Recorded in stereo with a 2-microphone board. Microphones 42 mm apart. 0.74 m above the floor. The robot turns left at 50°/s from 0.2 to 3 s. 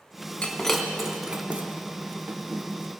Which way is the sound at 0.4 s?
20° left (ahead or behind).